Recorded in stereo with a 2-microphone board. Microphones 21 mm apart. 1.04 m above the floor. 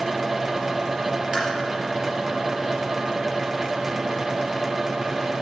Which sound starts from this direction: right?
Tapping, at 1.3 s.